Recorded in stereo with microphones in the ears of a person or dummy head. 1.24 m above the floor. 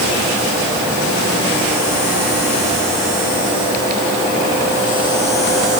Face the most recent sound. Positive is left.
No sound to turn to.